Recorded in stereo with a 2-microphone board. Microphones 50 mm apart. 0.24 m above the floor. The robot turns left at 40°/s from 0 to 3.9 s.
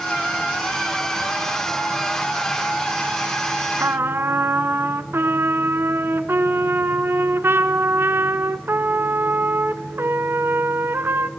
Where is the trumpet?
55° right (ahead or behind), 0.7 m; by 11.3 s 50° right (ahead or behind), 0.7 m.